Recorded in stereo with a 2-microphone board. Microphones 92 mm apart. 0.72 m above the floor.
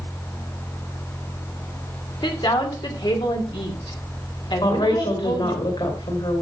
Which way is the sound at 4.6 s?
70° left (ahead or behind).